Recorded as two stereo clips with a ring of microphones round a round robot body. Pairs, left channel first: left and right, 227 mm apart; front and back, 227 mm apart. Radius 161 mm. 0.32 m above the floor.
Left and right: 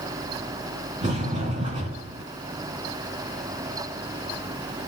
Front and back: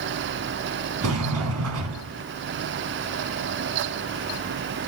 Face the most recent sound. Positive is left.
turn(degrees=-165)